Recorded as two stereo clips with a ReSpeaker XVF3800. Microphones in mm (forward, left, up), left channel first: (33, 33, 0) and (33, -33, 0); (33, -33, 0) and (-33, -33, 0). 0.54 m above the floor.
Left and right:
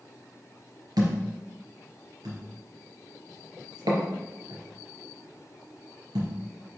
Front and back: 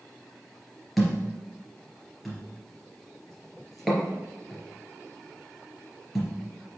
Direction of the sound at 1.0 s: 90° right.